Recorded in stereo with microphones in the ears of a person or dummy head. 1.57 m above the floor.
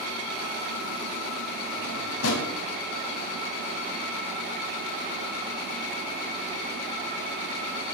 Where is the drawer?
80° left, 5.5 m.